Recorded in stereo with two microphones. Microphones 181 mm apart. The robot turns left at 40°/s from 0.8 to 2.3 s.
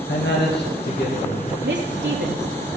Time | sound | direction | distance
0.1 | a man speaking | 70° left (ahead or behind) | 2.5 m
1.6 | a woman speaking | 80° right | 3 m